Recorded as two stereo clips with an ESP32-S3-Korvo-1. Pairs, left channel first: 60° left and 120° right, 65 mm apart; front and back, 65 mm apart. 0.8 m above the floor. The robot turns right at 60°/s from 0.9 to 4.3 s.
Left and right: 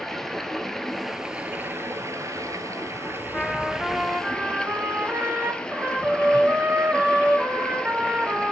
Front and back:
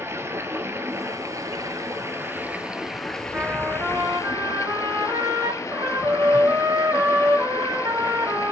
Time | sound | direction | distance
0.0 | running water | 140° left | 1.2 m
3.3 | a trumpet | 130° left | 1.6 m